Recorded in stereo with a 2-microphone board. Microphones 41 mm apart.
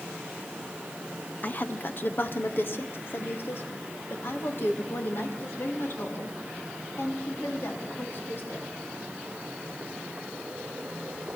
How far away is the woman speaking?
About 0.7 m.